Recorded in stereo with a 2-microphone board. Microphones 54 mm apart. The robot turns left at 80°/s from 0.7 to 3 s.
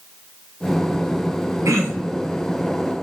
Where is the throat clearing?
110° right, 4 m; by 2.2 s 160° right, 4 m.